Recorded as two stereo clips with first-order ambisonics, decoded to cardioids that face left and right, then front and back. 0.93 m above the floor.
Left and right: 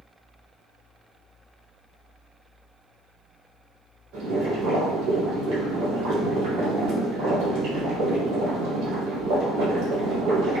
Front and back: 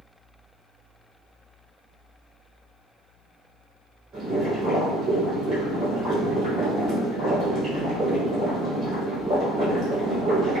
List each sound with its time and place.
4.1 s boiling: 110° right, 1.9 m